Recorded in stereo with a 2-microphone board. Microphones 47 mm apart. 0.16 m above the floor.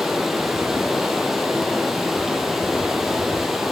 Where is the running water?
5° right (ahead or behind), 0.9 m.